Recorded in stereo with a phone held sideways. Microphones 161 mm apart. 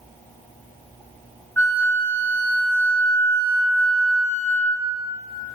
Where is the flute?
15° left (ahead or behind), 1.8 m.